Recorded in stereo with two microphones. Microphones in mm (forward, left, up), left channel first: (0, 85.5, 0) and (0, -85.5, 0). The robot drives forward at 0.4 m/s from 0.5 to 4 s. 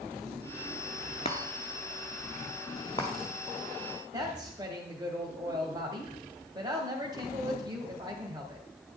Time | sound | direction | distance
1.2 | a chime | 35° left (ahead or behind) | 1.0 m
4.1 | a woman speaking | 25° right (ahead or behind) | 1.2 m